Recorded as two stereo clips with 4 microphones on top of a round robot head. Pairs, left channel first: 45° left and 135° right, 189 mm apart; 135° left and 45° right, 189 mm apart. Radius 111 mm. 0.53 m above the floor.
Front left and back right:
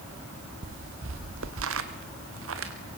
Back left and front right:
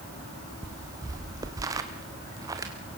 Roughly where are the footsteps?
Behind right.